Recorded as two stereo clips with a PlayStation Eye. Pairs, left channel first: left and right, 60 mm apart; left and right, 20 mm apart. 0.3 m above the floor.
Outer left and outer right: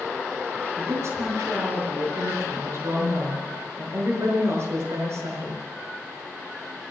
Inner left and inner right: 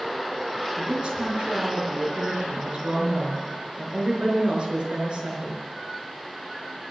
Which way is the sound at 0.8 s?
50° right (ahead or behind).